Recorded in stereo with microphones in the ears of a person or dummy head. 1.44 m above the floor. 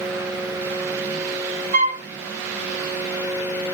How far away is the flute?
About 0.8 m.